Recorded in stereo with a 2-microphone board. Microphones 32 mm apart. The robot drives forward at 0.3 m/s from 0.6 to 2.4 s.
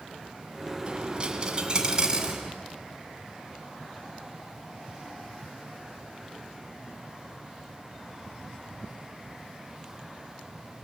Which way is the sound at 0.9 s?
35° right (ahead or behind).